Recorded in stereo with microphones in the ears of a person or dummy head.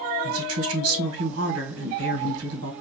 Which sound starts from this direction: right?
A woman speaking, at 0.2 s.